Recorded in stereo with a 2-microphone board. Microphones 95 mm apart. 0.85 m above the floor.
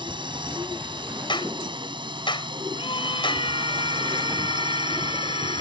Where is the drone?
60° right (ahead or behind); by 5.6 s 55° right (ahead or behind).